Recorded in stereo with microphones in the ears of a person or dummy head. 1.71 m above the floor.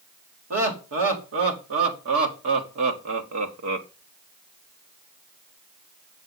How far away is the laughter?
About 3 m.